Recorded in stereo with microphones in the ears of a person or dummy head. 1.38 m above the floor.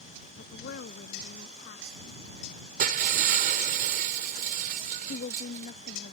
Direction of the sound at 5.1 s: 50° left (ahead or behind).